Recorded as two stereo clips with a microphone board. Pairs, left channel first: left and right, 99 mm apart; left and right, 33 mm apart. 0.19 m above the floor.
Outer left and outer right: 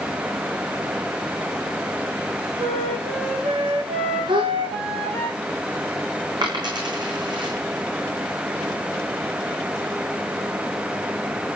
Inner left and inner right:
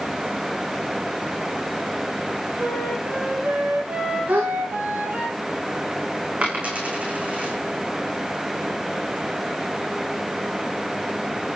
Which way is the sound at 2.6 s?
75° right (ahead or behind).